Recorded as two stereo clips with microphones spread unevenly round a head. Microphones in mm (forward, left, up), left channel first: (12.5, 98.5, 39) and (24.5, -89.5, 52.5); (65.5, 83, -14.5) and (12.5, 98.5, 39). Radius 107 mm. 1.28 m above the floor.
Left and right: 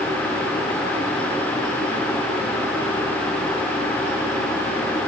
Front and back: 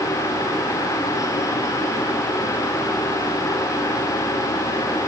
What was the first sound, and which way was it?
Only background noise.